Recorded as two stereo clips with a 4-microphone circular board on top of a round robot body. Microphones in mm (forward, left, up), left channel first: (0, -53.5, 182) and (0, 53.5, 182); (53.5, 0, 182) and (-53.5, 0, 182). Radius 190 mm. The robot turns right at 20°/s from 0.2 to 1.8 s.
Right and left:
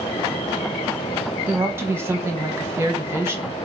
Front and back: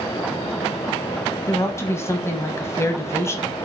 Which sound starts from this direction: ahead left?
A woman speaking, at 1.5 s.